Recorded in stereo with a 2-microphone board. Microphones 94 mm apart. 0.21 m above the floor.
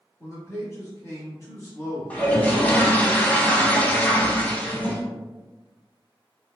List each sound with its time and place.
0.2 s a man speaking: 35° left (ahead or behind), 1.3 m
2.1 s a toilet flushing: 15° left (ahead or behind), 0.6 m